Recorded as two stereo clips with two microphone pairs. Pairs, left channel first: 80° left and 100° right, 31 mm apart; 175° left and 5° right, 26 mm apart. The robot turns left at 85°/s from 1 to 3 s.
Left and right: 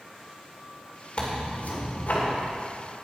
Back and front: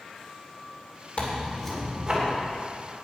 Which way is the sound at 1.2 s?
140° left.